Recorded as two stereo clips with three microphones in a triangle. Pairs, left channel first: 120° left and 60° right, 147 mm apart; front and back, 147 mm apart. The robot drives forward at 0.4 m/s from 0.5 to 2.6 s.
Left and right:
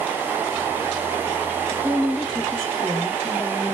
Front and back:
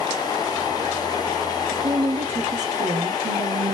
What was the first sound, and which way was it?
A woman speaking, 135° right.